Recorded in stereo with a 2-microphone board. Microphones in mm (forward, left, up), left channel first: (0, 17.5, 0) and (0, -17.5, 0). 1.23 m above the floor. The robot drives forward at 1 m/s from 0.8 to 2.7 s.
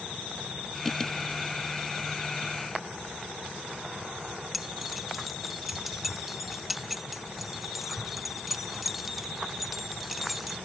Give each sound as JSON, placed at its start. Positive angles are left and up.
{"t": 4.5, "sound": "keys jangling", "side_deg": -5}